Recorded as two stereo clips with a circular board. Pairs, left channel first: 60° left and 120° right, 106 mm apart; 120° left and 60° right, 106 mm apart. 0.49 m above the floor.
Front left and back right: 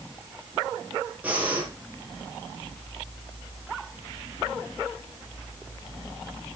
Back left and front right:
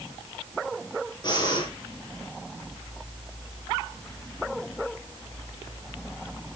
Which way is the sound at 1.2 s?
165° left.